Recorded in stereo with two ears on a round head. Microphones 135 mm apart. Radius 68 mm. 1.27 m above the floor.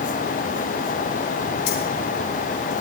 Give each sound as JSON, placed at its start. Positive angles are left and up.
{"t": 1.7, "sound": "keys jangling", "side_deg": 80, "distance_m": 4.5}